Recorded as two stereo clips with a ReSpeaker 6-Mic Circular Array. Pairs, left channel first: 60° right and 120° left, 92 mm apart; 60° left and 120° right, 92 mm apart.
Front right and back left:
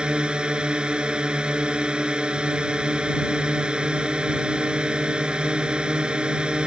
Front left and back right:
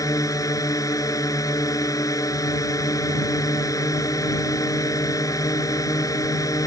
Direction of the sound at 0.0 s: 45° left.